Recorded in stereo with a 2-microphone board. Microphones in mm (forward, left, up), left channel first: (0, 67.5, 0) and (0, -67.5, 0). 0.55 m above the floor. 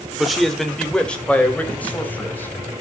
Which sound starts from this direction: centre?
A man speaking, at 0.2 s.